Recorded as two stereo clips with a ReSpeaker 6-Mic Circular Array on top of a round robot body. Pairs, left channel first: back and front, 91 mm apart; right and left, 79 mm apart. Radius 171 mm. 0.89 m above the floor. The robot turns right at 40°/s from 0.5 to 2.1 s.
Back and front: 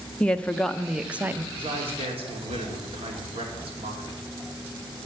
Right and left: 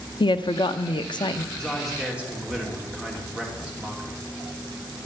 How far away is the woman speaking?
About 0.9 m.